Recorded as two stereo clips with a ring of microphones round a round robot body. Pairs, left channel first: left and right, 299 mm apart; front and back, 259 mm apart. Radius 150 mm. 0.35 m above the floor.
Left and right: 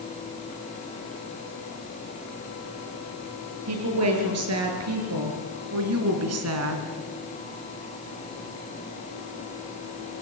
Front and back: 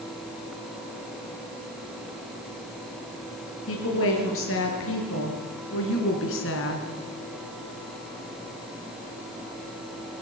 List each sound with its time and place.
3.7 s a woman speaking: 50° right, 6 m